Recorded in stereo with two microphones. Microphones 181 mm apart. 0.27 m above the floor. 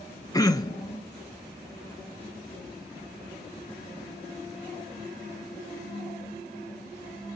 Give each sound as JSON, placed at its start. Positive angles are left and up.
{"t": 0.3, "sound": "throat clearing", "side_deg": 20, "distance_m": 0.6}